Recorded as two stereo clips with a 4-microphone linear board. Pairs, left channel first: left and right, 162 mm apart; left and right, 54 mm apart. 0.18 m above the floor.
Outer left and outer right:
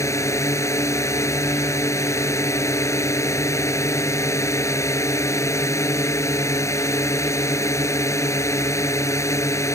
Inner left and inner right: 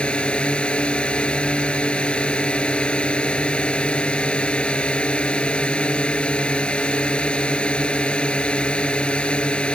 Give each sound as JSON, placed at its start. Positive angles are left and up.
{"t": 0.0, "sound": "a drone", "side_deg": 20}